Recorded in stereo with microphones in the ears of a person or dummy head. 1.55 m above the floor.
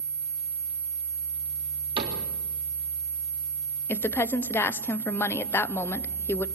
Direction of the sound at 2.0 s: 25° right (ahead or behind).